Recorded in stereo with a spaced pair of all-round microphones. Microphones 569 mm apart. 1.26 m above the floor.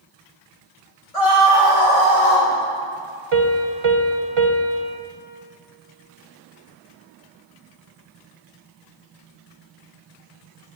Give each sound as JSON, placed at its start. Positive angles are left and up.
{"t": 1.1, "sound": "a scream", "side_deg": 80, "distance_m": 2.5}
{"t": 3.3, "sound": "a piano", "side_deg": -60, "distance_m": 0.9}